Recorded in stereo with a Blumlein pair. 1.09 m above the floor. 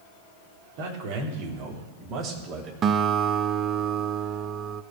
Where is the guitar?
25° right, 0.7 m.